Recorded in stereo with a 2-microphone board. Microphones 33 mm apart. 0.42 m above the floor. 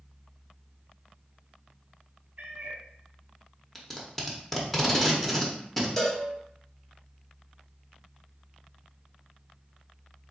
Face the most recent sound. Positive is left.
turn(degrees=15)  # may be behind; listen again after turning